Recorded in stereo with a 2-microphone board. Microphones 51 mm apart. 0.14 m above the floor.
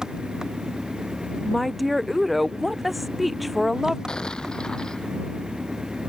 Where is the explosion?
15° left (ahead or behind).